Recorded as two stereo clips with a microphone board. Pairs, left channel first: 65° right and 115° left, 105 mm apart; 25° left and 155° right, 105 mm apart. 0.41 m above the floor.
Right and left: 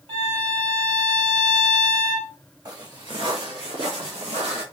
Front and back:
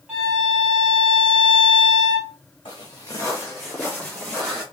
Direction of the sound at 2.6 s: 60° left.